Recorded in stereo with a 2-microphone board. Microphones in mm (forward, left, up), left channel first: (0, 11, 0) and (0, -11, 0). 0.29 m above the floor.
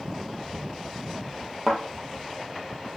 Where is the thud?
Centre (ahead or behind), 2.5 m.